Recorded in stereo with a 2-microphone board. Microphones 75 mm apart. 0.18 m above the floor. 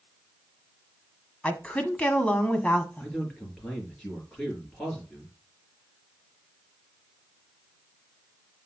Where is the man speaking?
10° left (ahead or behind), 3 m.